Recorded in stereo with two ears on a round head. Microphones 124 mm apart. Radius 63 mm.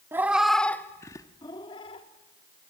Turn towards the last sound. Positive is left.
turn(degrees=40)  # may be behind; listen again after turning